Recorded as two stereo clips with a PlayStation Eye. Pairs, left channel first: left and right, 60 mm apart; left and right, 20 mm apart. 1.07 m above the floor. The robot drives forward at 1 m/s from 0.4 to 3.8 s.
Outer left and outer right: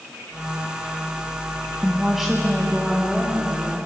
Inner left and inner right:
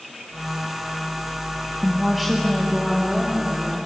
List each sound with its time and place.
1.8 s a woman speaking: 10° right (ahead or behind), 1.4 m; by 3.8 s 5° right (ahead or behind), 3.5 m